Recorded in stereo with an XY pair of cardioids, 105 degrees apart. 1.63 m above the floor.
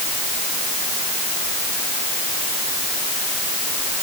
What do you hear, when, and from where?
Only background noise.